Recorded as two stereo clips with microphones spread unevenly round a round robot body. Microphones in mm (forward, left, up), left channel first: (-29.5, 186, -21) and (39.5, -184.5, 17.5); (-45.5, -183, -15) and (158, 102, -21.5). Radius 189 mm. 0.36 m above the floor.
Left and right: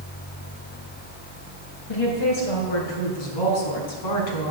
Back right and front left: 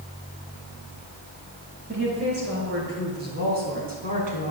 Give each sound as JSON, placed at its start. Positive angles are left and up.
{"t": 1.9, "sound": "a woman speaking", "azimuth_deg": 115, "distance_m": 5.5}